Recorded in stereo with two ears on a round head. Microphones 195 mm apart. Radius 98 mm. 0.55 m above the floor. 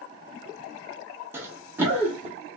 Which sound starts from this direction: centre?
Running footsteps, at 1.3 s.